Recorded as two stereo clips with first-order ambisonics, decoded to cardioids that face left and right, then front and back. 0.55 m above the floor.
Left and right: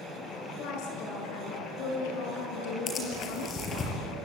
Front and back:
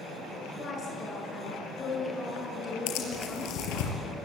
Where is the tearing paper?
25° left, 5 m.